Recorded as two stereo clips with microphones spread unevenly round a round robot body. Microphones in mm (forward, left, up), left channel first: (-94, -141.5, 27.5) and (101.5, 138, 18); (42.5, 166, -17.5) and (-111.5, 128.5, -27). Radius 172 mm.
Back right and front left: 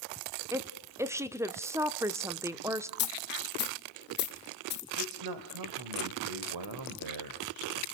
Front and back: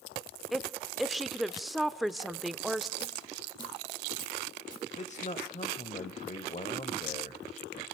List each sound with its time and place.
0.5 s a woman speaking: 115° left, 0.7 m
3.0 s a dropped coin: 65° right, 2 m
5.0 s a man speaking: 55° left, 1.5 m